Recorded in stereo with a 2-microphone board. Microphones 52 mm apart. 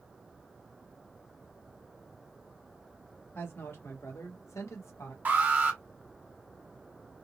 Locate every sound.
3.4 s a woman speaking: 50° left (ahead or behind), 1.5 m; by 5.2 s 70° left (ahead or behind), 1.5 m
5.2 s an alarm: 35° right (ahead or behind), 1.3 m